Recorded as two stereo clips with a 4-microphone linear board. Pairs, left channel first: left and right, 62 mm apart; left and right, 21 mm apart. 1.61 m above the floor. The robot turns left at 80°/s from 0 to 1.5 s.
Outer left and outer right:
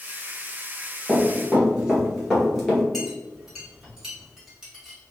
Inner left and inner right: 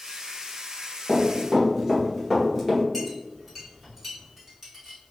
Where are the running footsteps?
15° right (ahead or behind), 1.8 m; by 2.8 s 10° left (ahead or behind), 1.6 m.